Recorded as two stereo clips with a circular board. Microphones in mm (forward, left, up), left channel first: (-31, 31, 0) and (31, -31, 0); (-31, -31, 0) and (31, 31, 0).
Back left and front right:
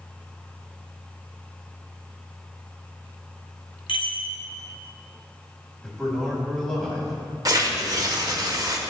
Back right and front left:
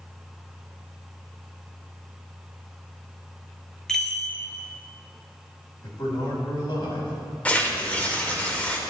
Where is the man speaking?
140° right, 3 m.